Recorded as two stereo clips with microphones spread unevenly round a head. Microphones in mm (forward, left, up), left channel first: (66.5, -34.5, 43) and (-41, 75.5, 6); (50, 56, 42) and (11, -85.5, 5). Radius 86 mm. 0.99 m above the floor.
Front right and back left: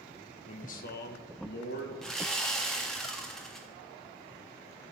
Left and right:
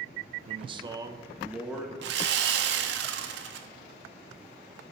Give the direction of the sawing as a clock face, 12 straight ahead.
4 o'clock.